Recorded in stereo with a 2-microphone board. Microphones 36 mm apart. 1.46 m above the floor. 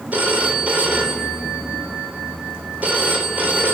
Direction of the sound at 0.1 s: 50° right (ahead or behind).